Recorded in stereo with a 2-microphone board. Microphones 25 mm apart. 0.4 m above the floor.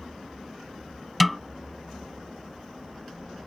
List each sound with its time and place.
1.2 s a snare drum: 5° right (ahead or behind)